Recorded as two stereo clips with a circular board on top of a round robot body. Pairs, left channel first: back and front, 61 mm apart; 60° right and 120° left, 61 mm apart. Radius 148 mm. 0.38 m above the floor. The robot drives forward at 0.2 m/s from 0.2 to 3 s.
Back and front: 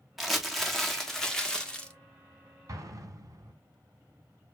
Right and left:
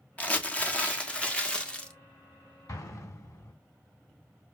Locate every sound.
0.2 s crumpling: 85° right, 1.4 m; by 1.9 s 120° right, 1.4 m
2.7 s an explosion: 35° right, 2.5 m